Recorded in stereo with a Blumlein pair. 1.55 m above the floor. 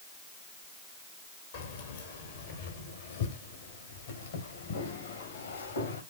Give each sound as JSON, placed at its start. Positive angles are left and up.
{"t": 1.5, "sound": "keys jangling", "azimuth_deg": 55, "distance_m": 3.5}